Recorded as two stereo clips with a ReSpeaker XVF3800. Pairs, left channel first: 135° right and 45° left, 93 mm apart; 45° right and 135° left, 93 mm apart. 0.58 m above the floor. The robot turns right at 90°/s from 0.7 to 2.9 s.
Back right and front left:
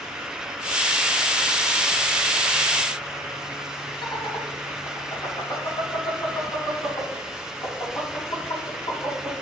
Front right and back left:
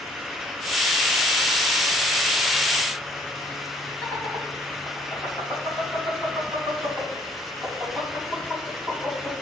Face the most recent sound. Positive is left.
turn(degrees=-115)